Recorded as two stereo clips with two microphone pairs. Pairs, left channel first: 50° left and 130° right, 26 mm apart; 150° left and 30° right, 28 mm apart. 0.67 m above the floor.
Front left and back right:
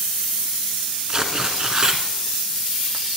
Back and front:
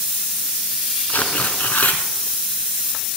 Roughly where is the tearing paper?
Behind.